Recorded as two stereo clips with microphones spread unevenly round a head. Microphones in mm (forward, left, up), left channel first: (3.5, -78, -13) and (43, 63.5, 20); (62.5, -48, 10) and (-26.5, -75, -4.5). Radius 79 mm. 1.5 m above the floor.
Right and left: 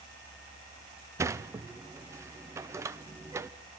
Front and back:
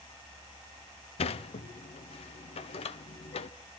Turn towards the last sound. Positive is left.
turn(degrees=5)